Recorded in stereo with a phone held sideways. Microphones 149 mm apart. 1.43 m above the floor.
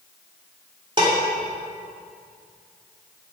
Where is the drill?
No drill in this recording.